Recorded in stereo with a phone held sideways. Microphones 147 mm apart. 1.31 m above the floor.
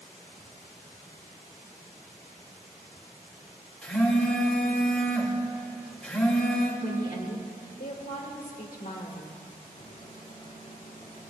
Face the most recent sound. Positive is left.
turn(degrees=55)  # may be behind; listen again after turning